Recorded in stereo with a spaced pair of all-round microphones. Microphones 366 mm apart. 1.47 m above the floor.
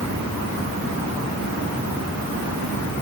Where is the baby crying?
No baby crying in this recording.